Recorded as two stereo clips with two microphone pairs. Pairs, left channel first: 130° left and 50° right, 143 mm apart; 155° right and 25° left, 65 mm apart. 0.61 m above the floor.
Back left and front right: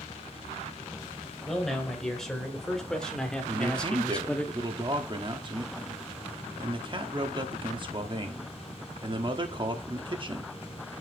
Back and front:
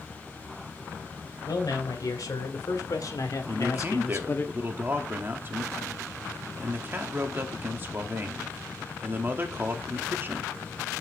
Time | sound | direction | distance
1.5 | a man speaking | 140° right | 3 m
3.5 | a man speaking | 15° right | 1.1 m